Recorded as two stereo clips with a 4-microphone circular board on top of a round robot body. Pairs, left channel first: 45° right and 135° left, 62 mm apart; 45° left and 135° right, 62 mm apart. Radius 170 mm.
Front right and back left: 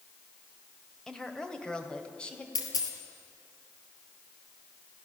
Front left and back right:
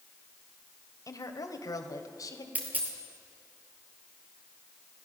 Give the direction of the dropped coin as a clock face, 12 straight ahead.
2 o'clock.